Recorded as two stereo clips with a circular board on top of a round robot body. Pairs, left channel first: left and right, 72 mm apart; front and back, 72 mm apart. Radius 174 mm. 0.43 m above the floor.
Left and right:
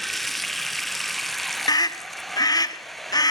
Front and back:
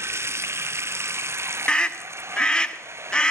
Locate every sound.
0.0 s running water: 175° left, 0.9 m
1.7 s a scream: 75° left, 1.9 m